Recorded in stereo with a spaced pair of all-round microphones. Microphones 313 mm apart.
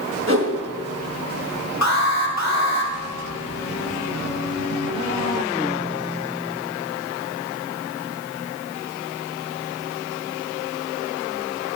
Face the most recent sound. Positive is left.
turn(degrees=60)  # may be behind; listen again after turning